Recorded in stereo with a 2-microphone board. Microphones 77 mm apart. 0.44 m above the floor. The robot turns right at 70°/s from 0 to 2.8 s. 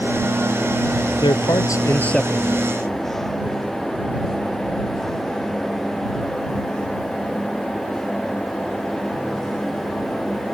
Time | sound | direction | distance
1.2 | a man speaking | 100° left | ?